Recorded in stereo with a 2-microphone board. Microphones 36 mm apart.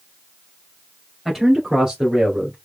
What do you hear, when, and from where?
1.2 s a man speaking: 5° right (ahead or behind), 2.5 m; by 2.5 s 30° right (ahead or behind), 2 m